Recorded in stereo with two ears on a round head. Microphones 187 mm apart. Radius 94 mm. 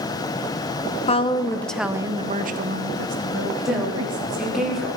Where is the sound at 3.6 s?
Centre (ahead or behind), 2.5 m.